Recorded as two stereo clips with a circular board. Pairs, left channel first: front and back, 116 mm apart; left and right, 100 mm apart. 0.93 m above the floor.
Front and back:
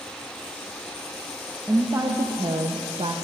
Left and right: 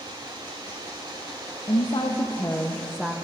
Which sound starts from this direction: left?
A woman speaking, at 1.7 s.